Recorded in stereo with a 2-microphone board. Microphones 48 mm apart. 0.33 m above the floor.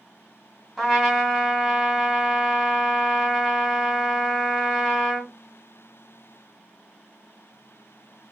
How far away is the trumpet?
About 1.8 m.